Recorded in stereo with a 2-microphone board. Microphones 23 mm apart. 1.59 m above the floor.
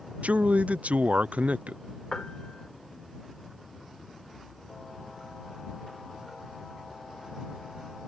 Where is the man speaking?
80° right.